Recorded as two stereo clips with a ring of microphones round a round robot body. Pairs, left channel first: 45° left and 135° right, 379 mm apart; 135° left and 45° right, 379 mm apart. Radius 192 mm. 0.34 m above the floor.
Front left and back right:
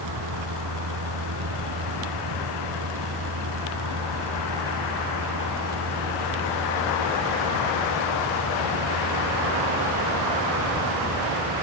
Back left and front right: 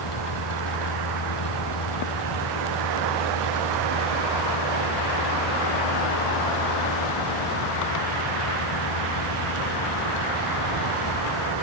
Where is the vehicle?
175° left; by 11.6 s 165° left.